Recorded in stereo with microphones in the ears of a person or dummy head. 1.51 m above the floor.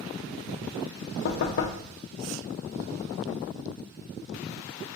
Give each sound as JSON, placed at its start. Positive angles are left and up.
{"t": 1.2, "sound": "knocking", "side_deg": 65, "distance_m": 0.6}